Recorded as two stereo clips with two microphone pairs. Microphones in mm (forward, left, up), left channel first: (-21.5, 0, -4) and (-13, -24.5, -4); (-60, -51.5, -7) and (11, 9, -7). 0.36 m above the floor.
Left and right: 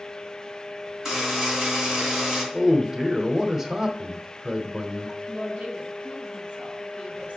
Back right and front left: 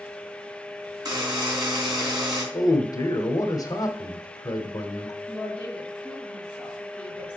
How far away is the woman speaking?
About 2.5 m.